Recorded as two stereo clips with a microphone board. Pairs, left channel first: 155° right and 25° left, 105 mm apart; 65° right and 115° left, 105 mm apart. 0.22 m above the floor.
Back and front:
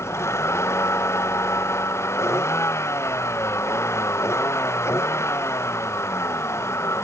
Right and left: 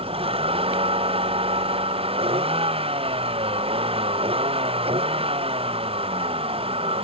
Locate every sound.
0.0 s a vehicle: 140° left